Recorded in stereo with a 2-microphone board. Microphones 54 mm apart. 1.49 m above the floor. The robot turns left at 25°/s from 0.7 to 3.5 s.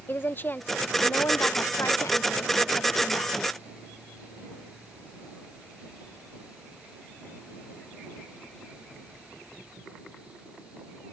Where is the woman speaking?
140° left; by 3.4 s 75° left.